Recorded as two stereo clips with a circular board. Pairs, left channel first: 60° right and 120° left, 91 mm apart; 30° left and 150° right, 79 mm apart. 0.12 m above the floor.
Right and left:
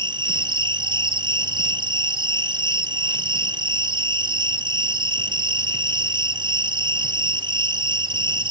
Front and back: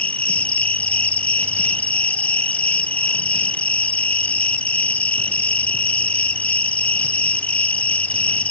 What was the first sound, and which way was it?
An insect, 100° left.